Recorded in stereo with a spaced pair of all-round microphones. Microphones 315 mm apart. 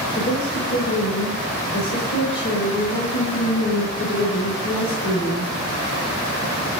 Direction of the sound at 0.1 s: 65° left (ahead or behind).